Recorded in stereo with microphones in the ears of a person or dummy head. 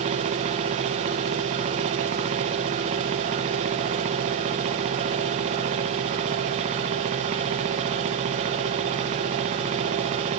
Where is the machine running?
30° right (ahead or behind), 0.9 m.